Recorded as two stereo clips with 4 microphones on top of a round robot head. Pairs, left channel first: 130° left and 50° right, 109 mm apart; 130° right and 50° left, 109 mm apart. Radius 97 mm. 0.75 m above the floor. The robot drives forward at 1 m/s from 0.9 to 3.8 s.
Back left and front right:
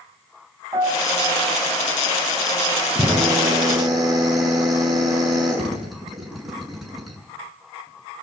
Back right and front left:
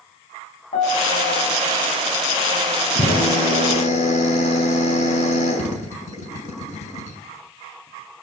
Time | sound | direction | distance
0.7 | a piano | 115° right | 8 m
3.0 | a drill | 130° right | 6.5 m